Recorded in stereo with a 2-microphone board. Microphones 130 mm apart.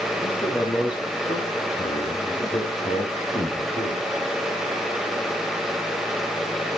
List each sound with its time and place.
0.2 s a man speaking: 35° left (ahead or behind), 3 m; by 4.0 s 55° left (ahead or behind), 3 m